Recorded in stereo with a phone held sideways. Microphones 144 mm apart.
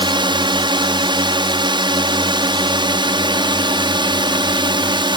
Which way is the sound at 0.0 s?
30° right (ahead or behind).